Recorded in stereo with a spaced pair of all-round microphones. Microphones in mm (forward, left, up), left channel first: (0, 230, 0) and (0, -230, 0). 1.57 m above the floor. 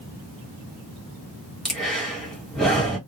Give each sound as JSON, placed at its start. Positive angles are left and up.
{"t": 1.6, "sound": "breathing", "side_deg": 0, "distance_m": 1.5}